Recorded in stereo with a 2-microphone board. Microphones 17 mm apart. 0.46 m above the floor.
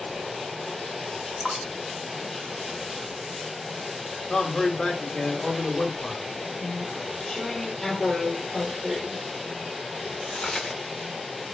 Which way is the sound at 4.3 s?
45° left (ahead or behind).